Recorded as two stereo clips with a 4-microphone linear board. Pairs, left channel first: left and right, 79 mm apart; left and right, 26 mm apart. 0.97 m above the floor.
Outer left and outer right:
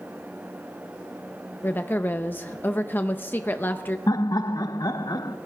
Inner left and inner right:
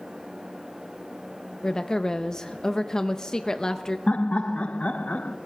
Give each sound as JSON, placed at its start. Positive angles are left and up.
{"t": 1.6, "sound": "a woman speaking", "side_deg": 25, "distance_m": 0.5}
{"t": 4.1, "sound": "laughter", "side_deg": 55, "distance_m": 0.7}